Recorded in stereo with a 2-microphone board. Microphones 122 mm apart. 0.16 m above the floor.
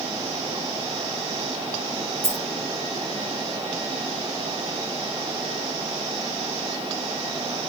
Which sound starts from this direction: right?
A dropped coin, at 2.2 s.